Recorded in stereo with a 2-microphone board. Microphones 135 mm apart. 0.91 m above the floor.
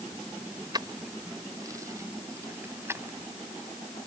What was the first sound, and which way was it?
Keys jangling, 30° right (ahead or behind).